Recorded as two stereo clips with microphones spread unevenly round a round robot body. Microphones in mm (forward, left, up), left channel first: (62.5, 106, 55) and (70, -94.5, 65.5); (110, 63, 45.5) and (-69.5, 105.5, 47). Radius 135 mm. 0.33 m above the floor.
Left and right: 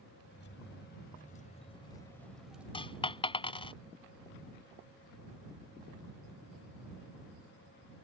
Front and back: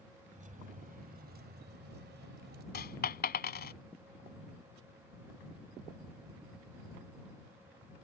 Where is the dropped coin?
25° left.